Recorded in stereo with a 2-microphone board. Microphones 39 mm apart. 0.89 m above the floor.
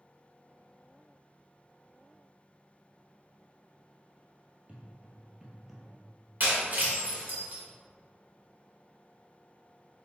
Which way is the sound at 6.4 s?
50° right (ahead or behind).